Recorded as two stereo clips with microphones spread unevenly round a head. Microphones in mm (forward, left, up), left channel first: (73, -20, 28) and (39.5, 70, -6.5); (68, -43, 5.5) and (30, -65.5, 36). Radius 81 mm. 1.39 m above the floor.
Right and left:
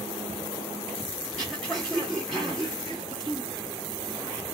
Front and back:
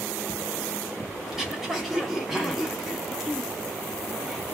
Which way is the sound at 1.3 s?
125° right.